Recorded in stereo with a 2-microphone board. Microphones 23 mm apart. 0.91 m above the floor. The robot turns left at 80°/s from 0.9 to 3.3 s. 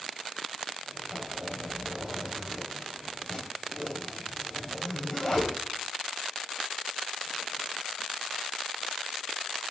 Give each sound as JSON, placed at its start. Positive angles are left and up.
{"t": 1.1, "sound": "a zipper", "side_deg": -25, "distance_m": 3.0}